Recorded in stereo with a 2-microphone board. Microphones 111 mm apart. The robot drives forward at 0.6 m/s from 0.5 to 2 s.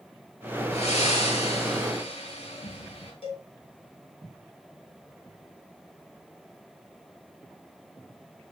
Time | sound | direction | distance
0.7 | breathing | 80° left | 4 m
3.2 | a cowbell | 55° left (ahead or behind) | 4.5 m